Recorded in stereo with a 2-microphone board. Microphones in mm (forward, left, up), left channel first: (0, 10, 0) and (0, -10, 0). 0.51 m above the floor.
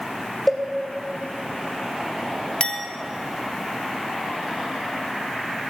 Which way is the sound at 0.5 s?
5° left (ahead or behind).